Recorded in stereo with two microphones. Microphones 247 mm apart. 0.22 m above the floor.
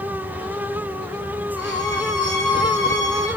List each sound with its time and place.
1.6 s a violin: 85° right, 4 m